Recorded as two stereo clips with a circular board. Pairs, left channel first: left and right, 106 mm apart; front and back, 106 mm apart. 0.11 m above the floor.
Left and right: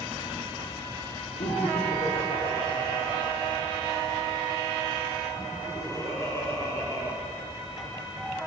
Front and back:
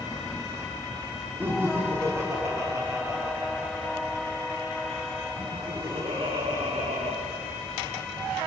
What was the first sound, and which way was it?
Laughter, 110° left.